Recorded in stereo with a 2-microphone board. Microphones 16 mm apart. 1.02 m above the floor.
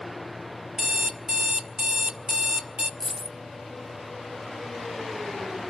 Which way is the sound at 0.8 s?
70° right (ahead or behind).